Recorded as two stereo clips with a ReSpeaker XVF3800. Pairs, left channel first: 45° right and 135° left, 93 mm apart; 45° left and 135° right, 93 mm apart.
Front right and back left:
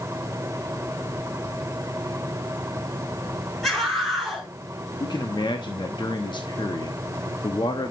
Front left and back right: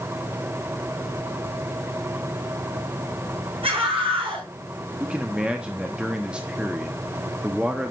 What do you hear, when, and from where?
3.6 s a scream: 130° right, 6 m
5.0 s a man speaking: 60° right, 1.0 m